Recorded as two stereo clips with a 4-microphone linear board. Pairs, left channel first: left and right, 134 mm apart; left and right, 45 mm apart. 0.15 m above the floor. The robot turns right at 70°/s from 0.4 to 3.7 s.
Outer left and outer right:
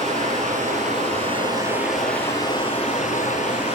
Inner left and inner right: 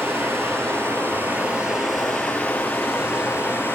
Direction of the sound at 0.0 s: 110° right.